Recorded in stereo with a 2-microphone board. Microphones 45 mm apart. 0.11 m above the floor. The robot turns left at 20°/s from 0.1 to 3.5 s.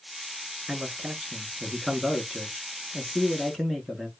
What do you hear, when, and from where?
0.7 s a man speaking: 10° right (ahead or behind), 1.1 m; by 4.1 s 5° left (ahead or behind), 1.1 m